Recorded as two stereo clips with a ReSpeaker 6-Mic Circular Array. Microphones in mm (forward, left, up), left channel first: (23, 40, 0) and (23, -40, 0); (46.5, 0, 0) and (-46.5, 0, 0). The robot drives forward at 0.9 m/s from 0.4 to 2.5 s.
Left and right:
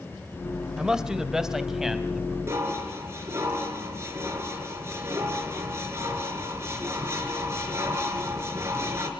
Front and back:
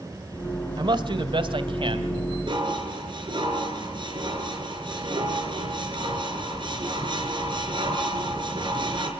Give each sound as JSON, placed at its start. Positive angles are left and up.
{"t": 0.8, "sound": "a man speaking", "azimuth_deg": -170, "distance_m": 1.5}
{"t": 2.5, "sound": "dishes clattering", "azimuth_deg": -145, "distance_m": 4.5}